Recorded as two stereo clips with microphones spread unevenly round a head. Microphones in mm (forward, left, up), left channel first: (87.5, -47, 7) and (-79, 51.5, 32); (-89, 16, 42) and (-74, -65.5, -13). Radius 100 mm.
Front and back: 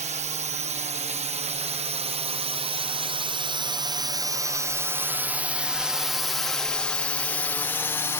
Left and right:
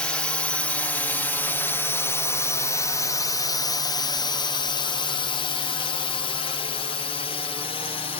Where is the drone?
155° right; by 8.2 s 40° left.